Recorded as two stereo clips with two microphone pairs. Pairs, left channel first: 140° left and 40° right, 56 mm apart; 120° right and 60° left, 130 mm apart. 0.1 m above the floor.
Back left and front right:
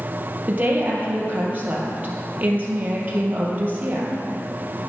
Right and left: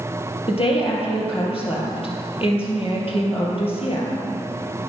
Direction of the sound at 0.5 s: 90° right.